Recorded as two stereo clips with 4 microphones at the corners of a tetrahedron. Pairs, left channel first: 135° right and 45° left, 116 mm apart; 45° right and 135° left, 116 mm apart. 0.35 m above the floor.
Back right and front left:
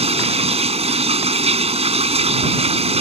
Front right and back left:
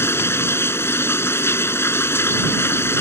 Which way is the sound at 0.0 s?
20° left.